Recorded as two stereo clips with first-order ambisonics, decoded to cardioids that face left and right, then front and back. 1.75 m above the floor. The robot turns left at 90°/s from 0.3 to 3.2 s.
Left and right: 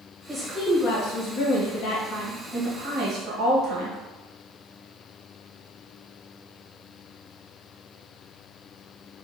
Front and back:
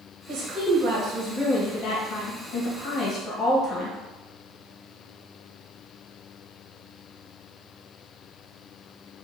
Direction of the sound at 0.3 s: 165° right.